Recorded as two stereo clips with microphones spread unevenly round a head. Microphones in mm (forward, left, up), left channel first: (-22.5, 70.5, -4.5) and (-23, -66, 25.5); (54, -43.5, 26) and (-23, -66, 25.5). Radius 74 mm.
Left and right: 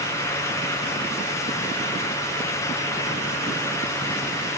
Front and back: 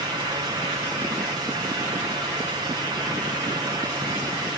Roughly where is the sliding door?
No sliding door in this recording.